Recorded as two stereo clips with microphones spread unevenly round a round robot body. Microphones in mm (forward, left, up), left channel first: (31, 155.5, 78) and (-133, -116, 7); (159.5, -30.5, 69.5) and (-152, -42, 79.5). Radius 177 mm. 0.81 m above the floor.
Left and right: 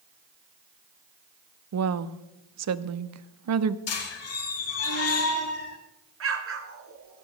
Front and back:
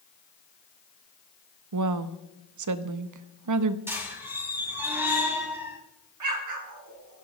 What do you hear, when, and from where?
1.7 s a woman speaking: 150° right, 1.0 m
3.9 s a squeak: 100° left, 1.9 m
6.2 s an explosion: 160° right, 2 m